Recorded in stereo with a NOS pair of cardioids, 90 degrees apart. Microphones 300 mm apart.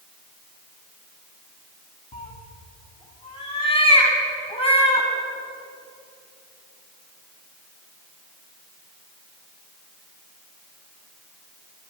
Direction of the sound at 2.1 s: 20° left.